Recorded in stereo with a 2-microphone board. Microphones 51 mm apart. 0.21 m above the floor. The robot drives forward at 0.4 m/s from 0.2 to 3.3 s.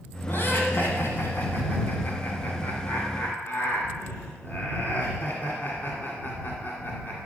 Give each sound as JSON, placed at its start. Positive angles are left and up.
{"t": 0.3, "sound": "laughter", "side_deg": 45, "distance_m": 1.7}